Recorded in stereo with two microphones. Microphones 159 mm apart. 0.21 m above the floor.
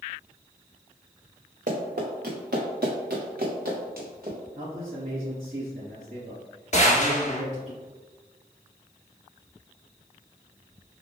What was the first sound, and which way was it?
Running footsteps, 60° right (ahead or behind).